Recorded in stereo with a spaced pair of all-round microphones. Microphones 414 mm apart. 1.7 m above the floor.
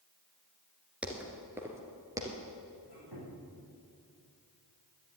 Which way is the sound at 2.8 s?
65° right (ahead or behind).